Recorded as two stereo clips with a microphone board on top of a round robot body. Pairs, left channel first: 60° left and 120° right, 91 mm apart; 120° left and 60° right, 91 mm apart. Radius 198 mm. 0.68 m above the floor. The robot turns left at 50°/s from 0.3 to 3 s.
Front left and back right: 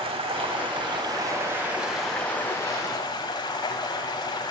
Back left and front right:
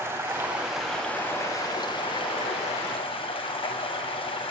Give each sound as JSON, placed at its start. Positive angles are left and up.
{"t": 0.0, "sound": "running water", "azimuth_deg": -125, "distance_m": 1.6}